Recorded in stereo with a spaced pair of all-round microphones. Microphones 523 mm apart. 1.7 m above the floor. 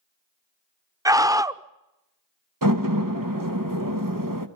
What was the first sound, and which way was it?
A scream, 5° right (ahead or behind).